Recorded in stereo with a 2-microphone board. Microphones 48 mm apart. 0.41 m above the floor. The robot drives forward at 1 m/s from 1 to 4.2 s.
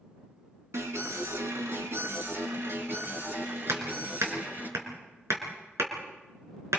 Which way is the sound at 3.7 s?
70° right (ahead or behind).